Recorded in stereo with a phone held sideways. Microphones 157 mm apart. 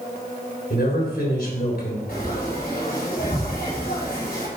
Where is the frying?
80° left, 4.5 m.